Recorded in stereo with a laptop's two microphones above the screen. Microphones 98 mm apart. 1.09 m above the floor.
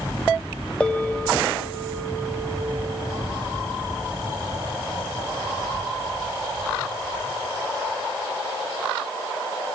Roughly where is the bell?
Centre.